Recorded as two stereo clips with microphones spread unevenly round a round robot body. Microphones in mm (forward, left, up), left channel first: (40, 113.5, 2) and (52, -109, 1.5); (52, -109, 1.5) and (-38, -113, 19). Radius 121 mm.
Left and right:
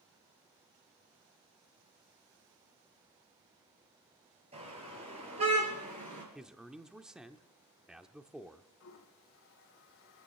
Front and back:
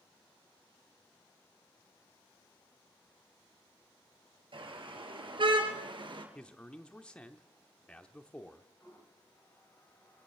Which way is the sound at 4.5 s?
155° right.